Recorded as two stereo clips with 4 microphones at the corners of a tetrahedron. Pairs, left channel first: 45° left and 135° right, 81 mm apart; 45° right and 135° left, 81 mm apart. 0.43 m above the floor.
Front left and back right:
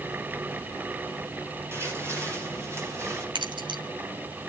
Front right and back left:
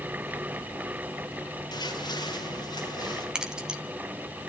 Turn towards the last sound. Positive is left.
turn(degrees=-145)